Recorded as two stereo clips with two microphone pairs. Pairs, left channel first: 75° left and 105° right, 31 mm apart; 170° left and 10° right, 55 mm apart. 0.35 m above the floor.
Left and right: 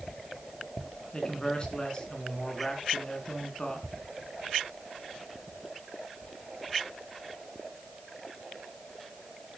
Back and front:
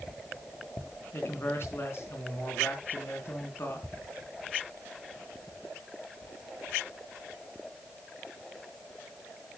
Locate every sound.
1.1 s a man speaking: 130° left, 3.5 m